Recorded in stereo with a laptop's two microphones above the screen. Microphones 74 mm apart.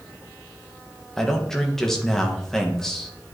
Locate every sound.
1.2 s a man speaking: 5° left (ahead or behind), 0.9 m